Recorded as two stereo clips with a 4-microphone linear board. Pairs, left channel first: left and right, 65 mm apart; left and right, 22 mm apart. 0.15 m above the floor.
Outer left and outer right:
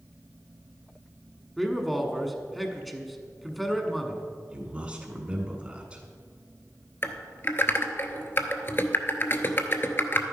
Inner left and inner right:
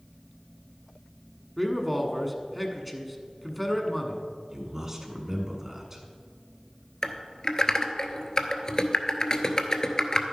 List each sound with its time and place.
1.6 s a man speaking: centre (ahead or behind), 1.1 m
4.5 s a man speaking: 20° right (ahead or behind), 1.5 m
7.0 s typing on a keyboard: 40° left (ahead or behind), 0.8 m